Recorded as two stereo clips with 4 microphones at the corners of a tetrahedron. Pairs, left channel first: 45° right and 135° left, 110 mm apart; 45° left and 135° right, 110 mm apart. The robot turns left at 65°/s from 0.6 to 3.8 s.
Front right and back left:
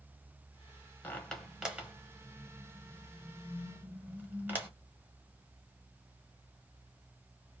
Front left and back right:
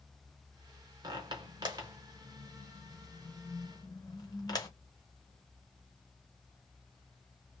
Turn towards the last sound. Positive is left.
turn(degrees=75)